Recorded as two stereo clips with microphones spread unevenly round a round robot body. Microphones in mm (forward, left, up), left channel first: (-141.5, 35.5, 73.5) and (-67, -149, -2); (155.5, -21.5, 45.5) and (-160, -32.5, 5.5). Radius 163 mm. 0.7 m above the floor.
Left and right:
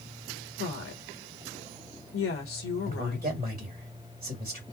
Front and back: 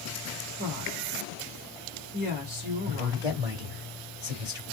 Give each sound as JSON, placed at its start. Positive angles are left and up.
{"t": 0.6, "sound": "a woman speaking", "azimuth_deg": 130, "distance_m": 1.6}
{"t": 2.9, "sound": "a man speaking", "azimuth_deg": -105, "distance_m": 2.5}